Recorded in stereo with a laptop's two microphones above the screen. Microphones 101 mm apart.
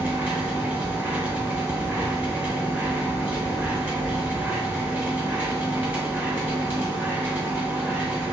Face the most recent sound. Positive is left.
turn(degrees=-15)  # may be behind; listen again after turning